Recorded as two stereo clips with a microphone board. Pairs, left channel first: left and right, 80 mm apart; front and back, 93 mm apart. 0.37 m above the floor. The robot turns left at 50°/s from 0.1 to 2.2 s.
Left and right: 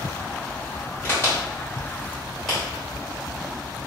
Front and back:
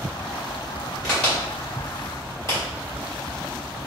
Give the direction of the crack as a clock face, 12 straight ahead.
9 o'clock.